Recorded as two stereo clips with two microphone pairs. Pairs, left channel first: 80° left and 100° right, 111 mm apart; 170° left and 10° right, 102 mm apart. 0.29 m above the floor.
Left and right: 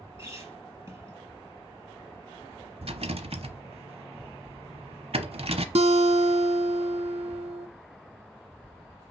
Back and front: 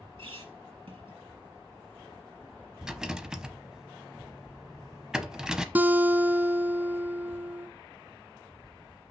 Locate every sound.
0.2 s a squeak: 35° right, 3.5 m
2.8 s a rattle: 95° right, 0.8 m
5.8 s a guitar: 85° right, 0.6 m